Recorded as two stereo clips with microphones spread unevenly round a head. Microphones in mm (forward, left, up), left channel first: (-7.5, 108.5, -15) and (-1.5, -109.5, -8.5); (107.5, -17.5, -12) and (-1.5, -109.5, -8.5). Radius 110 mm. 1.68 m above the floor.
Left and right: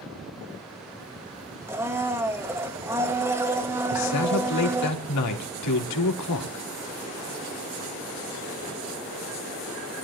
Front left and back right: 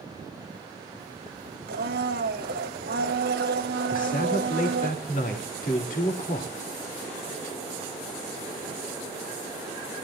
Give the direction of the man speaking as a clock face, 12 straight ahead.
9 o'clock.